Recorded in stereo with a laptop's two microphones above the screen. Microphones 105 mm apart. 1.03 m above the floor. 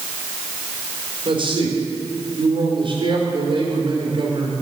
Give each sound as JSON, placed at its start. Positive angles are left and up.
{"t": 1.2, "sound": "a man speaking", "side_deg": -50, "distance_m": 3.0}